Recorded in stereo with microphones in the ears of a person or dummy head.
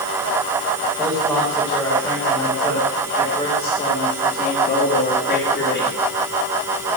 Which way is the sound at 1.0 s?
10° right (ahead or behind).